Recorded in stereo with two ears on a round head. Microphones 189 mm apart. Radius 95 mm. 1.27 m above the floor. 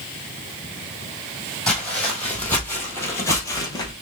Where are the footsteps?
5° left (ahead or behind), 2.0 m; by 3.9 s 20° left (ahead or behind), 1.3 m.